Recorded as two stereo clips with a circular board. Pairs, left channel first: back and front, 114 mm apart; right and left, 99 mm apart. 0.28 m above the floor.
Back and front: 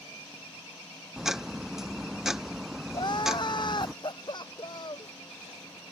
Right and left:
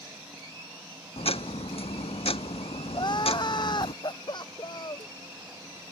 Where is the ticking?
85° right.